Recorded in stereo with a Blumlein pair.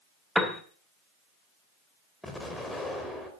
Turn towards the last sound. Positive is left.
turn(degrees=5)